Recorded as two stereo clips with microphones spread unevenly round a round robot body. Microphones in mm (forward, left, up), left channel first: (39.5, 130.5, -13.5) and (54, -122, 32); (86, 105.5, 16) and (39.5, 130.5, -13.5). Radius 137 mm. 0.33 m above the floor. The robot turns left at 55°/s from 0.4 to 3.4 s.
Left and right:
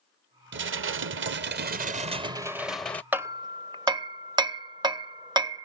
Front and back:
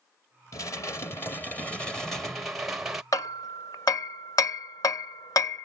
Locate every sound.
0.5 s dishes clattering: 70° right; by 3.0 s 155° left
3.1 s hammering: 5° left; by 5.6 s 10° right